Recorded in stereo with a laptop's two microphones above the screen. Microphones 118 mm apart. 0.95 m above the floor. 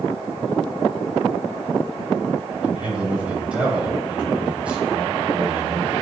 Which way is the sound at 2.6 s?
10° right (ahead or behind).